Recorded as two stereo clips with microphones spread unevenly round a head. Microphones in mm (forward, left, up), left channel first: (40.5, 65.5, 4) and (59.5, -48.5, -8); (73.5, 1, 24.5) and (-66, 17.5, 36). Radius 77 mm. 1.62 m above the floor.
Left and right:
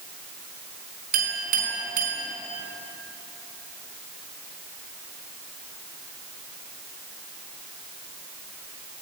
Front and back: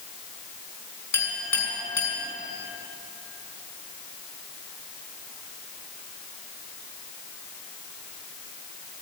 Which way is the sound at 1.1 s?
85° right.